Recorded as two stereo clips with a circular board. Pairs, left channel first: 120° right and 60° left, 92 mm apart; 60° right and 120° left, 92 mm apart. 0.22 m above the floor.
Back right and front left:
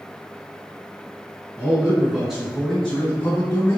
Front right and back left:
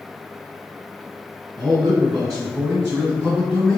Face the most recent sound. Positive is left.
turn(degrees=-155)